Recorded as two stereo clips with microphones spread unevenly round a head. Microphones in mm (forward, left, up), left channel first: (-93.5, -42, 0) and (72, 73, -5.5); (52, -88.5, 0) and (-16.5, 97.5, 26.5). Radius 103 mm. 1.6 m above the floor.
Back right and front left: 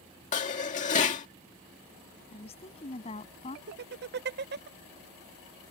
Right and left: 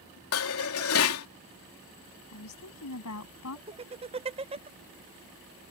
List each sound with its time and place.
0.3 s dishes clattering: 90° right
2.3 s a woman speaking: 80° right
3.7 s laughter: 60° left